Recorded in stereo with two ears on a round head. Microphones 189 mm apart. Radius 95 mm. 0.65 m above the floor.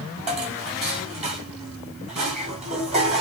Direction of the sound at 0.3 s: 30° right (ahead or behind).